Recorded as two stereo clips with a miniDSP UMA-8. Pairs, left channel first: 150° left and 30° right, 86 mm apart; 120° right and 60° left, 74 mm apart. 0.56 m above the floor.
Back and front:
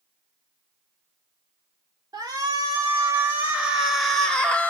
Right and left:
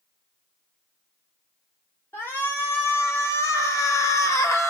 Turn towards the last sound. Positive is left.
turn(degrees=-145)